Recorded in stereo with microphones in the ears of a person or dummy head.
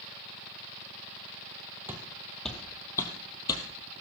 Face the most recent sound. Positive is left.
turn(degrees=25)  # may be behind; listen again after turning